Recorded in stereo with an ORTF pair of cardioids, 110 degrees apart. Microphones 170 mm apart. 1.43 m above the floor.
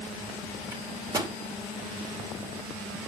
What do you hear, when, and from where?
0.7 s a microwave: 20° right, 2.5 m